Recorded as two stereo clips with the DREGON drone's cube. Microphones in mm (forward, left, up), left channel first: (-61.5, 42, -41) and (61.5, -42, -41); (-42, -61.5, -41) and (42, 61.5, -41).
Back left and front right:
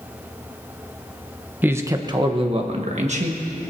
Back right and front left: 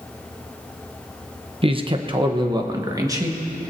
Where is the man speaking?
35° left, 0.9 m; by 3.7 s 10° right, 1.8 m.